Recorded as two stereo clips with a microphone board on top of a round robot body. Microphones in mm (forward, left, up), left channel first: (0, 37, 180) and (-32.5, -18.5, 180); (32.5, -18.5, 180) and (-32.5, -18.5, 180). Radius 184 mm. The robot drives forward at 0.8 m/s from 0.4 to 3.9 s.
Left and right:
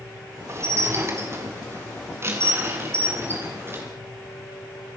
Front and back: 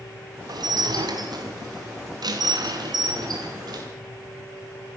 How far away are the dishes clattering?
About 3.5 m.